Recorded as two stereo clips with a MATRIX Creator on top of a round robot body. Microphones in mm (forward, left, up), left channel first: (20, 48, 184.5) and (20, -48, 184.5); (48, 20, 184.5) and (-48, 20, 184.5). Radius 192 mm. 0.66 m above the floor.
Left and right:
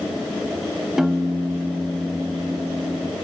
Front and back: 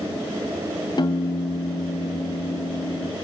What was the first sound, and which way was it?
A piano, 5° right.